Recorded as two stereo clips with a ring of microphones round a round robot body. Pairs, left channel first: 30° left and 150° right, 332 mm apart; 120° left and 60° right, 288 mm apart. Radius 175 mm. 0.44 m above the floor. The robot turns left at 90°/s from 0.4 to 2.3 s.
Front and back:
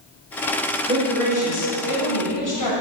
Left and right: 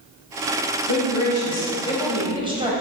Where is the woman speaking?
140° left, 3 m; by 2.7 s 10° left, 3 m.